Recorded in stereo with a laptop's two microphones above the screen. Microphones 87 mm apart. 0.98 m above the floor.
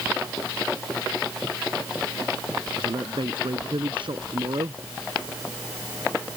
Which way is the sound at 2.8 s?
65° right (ahead or behind).